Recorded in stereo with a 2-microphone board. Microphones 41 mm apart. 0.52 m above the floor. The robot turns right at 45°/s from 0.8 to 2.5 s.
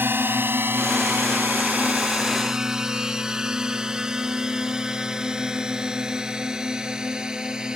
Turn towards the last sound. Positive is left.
turn(degrees=-20)  # may be behind; listen again after turning